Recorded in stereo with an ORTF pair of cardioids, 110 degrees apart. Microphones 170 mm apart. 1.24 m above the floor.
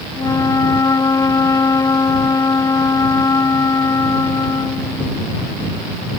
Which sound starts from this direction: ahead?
A flute, at 0.1 s.